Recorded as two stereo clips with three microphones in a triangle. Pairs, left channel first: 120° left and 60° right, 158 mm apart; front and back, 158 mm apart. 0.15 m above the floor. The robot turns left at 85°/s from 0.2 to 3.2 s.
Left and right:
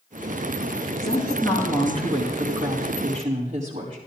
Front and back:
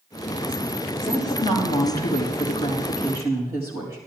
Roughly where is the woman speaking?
Left.